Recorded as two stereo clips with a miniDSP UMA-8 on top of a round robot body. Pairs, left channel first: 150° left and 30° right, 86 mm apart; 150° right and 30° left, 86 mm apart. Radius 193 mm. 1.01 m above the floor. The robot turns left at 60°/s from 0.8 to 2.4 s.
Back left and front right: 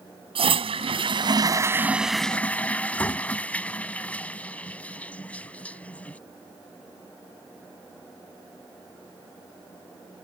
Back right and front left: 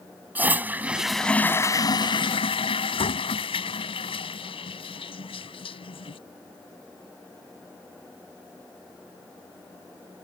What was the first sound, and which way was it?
A toilet flushing, 40° right.